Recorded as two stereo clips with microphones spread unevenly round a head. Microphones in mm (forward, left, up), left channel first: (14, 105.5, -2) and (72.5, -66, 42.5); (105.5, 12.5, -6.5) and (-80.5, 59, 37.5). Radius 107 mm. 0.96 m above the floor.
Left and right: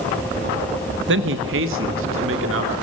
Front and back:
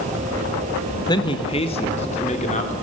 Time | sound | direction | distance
1.1 | a man speaking | 70° right | 1.3 m